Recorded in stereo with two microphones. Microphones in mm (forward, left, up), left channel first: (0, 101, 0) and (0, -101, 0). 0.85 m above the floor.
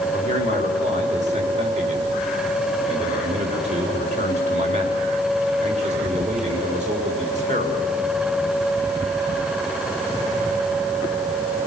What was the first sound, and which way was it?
A man speaking, 35° right (ahead or behind).